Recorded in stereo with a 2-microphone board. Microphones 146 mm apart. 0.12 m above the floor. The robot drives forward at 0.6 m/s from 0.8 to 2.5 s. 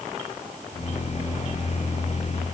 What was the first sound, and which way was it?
Only background noise.